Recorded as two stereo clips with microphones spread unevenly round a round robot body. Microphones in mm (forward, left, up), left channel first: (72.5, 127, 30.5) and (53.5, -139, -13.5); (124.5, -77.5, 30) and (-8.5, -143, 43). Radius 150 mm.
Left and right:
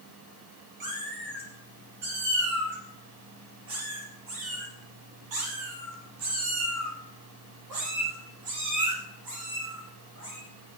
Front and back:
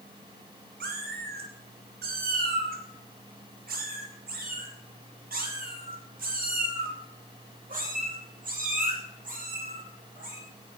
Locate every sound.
0.8 s a cat meowing: 160° right, 3 m; by 10.4 s 125° right, 7.5 m